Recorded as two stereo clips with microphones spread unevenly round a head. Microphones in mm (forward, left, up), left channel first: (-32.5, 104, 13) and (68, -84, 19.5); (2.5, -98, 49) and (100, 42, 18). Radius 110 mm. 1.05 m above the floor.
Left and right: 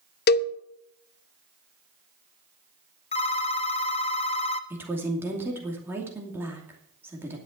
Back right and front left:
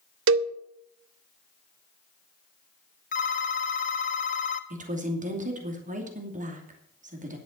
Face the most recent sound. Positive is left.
turn(degrees=20)